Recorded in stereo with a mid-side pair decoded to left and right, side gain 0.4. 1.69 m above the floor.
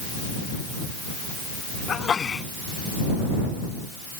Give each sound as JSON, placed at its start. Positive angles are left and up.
{"t": 1.9, "sound": "a sneeze", "azimuth_deg": 50}